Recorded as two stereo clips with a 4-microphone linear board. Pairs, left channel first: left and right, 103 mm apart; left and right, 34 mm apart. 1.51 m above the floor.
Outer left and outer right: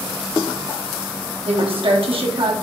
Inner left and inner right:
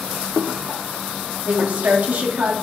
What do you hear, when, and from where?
1.4 s a woman speaking: 60° right (ahead or behind), 1.2 m